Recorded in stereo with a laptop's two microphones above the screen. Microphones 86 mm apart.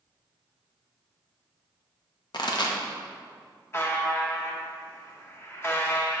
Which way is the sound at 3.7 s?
30° left (ahead or behind).